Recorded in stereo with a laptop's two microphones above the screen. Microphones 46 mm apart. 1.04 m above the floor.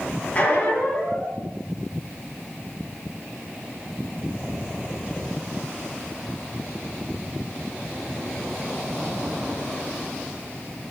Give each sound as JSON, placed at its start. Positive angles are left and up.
{"t": 0.3, "sound": "a squeak", "side_deg": 30, "distance_m": 0.7}